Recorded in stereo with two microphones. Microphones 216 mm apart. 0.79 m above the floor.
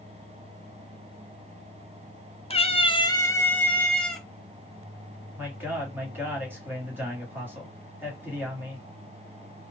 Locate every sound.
2.5 s a cat meowing: 25° left (ahead or behind), 0.5 m; by 4.2 s centre (ahead or behind), 1.1 m
5.4 s a man speaking: 10° right (ahead or behind), 1.8 m